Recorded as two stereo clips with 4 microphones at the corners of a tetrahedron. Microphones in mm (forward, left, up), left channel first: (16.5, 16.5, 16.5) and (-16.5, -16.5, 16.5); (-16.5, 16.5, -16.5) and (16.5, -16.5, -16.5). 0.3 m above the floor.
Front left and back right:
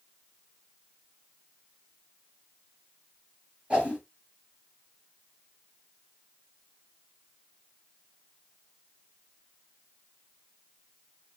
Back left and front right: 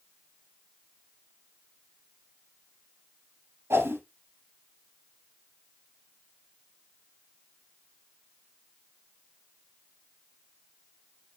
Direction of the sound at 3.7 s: 65° right.